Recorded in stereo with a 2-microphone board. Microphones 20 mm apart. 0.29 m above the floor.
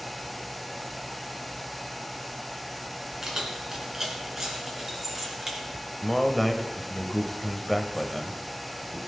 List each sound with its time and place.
3.2 s keys jangling: 30° right (ahead or behind), 2.5 m; by 5.6 s 20° right (ahead or behind), 3.5 m
6.0 s a man speaking: 5° left (ahead or behind), 1.0 m